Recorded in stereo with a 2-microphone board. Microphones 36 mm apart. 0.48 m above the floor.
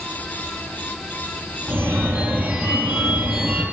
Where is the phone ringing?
85° right, 6 m.